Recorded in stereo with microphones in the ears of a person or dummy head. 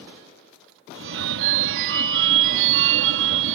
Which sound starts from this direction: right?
A phone ringing, at 0.9 s.